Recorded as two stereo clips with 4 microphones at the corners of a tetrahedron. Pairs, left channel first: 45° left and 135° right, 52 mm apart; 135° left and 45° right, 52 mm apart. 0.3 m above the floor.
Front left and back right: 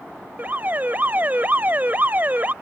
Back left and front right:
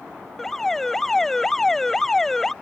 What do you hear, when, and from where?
0.4 s an alarm: 150° right